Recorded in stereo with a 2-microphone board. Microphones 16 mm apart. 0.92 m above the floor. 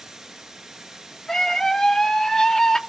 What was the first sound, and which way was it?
Running water, 40° right (ahead or behind).